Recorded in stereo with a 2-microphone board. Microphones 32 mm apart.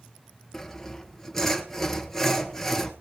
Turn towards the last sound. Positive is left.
turn(degrees=15)  # may be behind; listen again after turning